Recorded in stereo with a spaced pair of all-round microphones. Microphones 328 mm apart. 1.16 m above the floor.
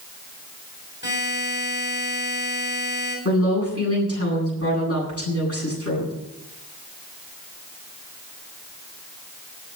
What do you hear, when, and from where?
1.0 s a buzzer: 30° left (ahead or behind), 7.5 m
3.2 s a woman speaking: 45° left (ahead or behind), 9.5 m